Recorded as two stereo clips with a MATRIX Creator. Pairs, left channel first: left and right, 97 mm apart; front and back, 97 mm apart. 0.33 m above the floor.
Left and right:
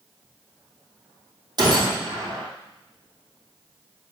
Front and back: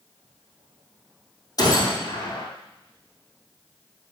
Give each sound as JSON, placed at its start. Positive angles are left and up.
{"t": 1.6, "sound": "a gunshot", "azimuth_deg": -50, "distance_m": 2.5}